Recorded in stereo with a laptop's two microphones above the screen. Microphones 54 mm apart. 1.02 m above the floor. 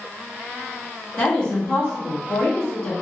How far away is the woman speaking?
About 1.5 m.